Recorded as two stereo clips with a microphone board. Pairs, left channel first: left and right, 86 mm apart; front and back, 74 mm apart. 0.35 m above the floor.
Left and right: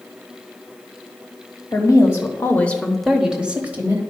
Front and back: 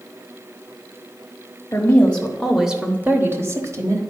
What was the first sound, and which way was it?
A woman speaking, 60° left.